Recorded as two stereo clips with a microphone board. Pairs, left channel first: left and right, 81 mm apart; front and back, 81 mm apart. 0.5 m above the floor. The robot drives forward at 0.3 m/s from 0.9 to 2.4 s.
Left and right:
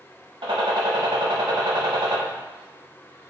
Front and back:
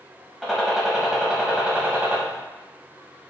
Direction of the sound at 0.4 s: 95° right.